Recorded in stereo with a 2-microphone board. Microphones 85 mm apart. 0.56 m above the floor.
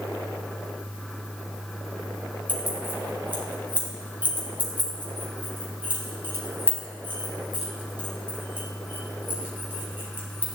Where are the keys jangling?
25° right (ahead or behind), 3 m.